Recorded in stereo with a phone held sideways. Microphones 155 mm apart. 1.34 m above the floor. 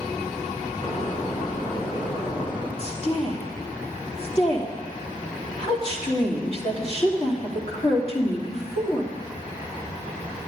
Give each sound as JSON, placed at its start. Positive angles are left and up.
{"t": 0.8, "sound": "a door slam", "side_deg": 35, "distance_m": 4.0}
{"t": 2.8, "sound": "a woman speaking", "side_deg": 40, "distance_m": 2.5}